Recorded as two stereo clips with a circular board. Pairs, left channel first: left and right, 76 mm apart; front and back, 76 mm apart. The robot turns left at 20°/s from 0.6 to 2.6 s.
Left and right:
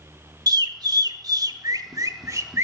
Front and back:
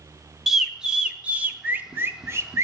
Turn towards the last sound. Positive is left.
turn(degrees=-135)